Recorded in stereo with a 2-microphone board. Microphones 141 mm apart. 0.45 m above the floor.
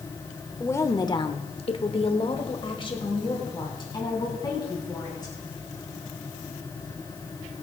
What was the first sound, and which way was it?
A woman speaking, 20° left (ahead or behind).